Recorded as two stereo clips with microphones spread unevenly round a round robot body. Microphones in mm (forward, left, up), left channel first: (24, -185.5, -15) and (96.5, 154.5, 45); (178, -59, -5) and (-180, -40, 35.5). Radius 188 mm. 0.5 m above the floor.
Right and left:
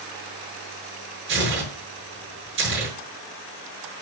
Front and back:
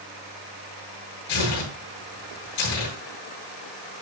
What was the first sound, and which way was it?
Tearing paper, 25° left.